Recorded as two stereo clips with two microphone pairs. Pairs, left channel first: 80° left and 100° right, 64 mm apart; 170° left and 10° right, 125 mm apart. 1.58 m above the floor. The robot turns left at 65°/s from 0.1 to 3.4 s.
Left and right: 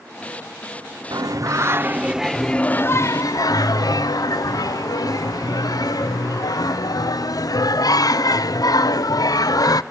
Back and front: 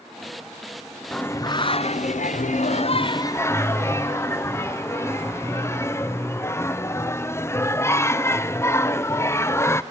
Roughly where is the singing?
Right.